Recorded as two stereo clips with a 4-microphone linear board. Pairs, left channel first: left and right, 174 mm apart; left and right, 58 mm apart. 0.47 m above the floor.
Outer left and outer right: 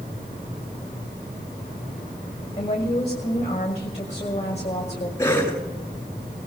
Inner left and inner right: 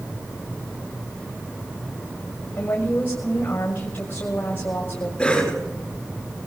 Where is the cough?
15° left (ahead or behind), 9 m.